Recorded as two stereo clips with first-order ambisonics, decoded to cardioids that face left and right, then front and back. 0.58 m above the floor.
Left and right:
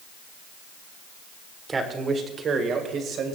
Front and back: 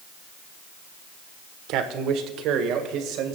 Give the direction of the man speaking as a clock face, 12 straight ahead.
5 o'clock.